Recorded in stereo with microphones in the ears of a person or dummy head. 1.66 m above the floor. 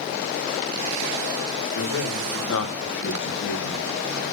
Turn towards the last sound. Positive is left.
turn(degrees=70)  # may be behind; listen again after turning